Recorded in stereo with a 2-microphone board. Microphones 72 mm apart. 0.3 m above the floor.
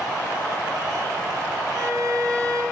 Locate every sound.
1.7 s a violin: 45° right (ahead or behind), 3 m